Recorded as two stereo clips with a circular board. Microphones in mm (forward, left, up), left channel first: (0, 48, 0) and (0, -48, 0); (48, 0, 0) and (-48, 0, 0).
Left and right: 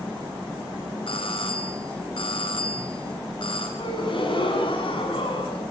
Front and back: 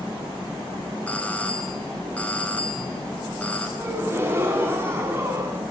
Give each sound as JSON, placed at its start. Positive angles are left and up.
{"t": 1.1, "sound": "a doorbell", "azimuth_deg": 75, "distance_m": 5.0}
{"t": 3.8, "sound": "a gasp", "azimuth_deg": 115, "distance_m": 6.5}